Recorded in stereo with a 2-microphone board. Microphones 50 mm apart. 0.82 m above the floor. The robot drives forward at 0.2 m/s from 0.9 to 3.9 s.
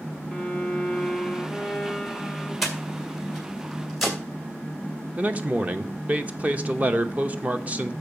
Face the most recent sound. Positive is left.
turn(degrees=-30)  # may be behind; listen again after turning